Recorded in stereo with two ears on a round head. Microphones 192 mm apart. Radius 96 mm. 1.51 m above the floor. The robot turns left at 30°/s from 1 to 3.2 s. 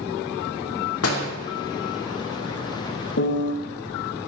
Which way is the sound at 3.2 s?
55° left (ahead or behind).